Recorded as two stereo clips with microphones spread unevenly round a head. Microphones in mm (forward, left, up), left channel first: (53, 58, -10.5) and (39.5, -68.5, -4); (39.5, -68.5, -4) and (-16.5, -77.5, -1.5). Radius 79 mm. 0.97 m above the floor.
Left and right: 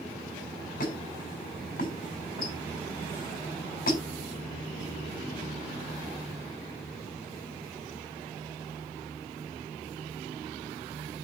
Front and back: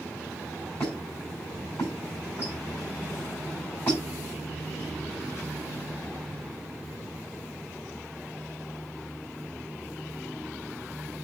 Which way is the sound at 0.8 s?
85° left.